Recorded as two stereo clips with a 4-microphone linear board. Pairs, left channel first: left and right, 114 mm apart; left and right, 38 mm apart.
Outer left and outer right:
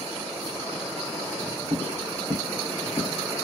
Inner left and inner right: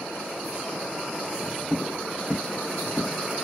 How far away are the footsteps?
About 0.9 m.